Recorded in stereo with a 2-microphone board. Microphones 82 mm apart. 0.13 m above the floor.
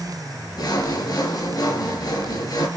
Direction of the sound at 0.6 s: 55° left (ahead or behind).